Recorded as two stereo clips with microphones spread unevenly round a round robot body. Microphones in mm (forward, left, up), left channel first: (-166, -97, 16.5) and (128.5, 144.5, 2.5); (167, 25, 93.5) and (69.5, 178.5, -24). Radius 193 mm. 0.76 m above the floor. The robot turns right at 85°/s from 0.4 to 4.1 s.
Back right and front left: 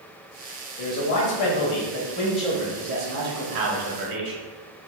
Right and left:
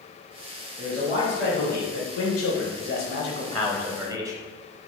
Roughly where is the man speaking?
Behind.